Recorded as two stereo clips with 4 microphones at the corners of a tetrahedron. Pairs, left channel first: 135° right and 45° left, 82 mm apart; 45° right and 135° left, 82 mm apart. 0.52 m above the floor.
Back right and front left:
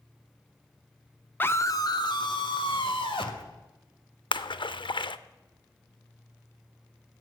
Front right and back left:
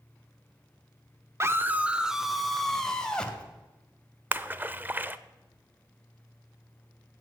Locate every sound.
1.4 s a scream: 170° left, 0.8 m; by 3.4 s 125° right, 2 m
4.3 s a splash: 160° right, 0.5 m